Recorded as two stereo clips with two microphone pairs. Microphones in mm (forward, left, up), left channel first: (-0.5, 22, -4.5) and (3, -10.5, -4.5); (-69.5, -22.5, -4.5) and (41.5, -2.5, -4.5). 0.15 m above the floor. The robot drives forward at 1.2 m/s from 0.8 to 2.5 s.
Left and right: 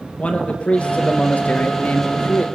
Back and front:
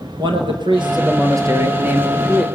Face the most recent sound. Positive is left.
turn(degrees=100)